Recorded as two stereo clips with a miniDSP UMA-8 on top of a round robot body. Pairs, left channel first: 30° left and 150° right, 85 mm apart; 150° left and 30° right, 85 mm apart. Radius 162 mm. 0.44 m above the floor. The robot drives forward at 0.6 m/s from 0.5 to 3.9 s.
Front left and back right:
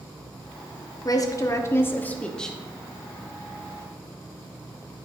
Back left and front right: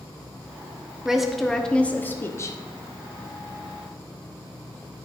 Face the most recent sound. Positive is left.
turn(degrees=150)